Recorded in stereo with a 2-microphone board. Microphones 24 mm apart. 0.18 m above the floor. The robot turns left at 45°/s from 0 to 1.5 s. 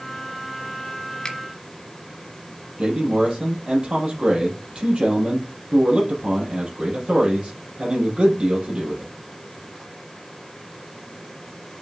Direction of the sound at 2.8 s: 45° right (ahead or behind).